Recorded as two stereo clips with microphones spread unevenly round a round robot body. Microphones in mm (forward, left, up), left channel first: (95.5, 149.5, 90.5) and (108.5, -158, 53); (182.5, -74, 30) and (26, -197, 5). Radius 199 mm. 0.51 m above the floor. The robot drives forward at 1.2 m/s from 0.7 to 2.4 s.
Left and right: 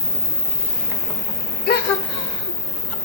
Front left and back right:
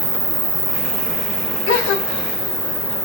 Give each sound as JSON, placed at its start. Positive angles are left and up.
{"t": 0.0, "sound": "an insect", "azimuth_deg": -165, "distance_m": 1.1}
{"t": 1.7, "sound": "a gasp", "azimuth_deg": 30, "distance_m": 1.2}